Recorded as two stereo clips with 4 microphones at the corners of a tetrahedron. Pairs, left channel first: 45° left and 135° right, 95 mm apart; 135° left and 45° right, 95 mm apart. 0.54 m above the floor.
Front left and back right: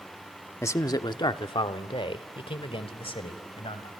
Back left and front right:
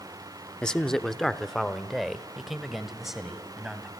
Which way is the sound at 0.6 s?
65° left.